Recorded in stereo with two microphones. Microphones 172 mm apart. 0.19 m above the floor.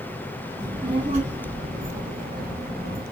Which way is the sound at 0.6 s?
20° right (ahead or behind).